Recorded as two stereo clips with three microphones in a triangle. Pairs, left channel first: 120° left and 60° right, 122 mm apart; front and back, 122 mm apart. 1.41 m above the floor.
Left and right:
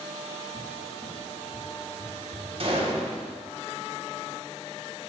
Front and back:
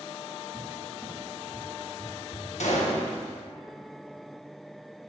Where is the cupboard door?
80° right, 2.5 m.